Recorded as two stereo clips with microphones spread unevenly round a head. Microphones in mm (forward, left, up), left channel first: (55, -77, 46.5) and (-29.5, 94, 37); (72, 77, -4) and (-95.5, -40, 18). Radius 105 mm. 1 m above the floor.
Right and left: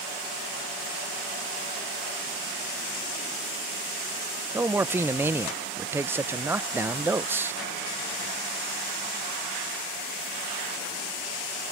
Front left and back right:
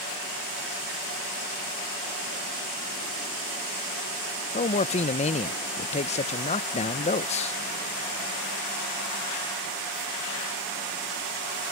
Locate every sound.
4.5 s a man speaking: 50° left